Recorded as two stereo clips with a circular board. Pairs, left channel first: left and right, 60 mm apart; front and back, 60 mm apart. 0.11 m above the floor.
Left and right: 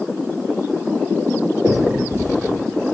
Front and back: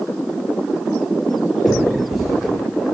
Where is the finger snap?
100° right, 2.5 m.